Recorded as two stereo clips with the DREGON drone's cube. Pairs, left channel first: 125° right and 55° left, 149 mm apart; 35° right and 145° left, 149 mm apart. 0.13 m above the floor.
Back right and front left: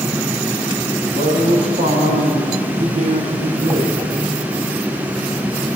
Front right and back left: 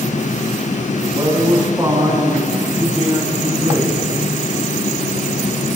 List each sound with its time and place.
1.0 s a man speaking: 75° left, 7 m; by 4.0 s 60° left, 6.5 m